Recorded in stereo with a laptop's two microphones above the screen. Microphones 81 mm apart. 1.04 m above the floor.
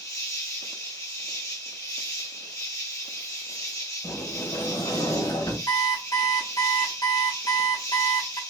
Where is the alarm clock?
55° left (ahead or behind), 1.2 m.